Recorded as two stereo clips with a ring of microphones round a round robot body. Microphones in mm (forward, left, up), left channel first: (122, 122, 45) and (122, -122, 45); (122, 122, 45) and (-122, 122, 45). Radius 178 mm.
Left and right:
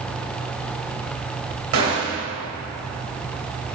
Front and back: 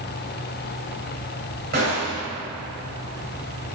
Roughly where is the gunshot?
Behind right.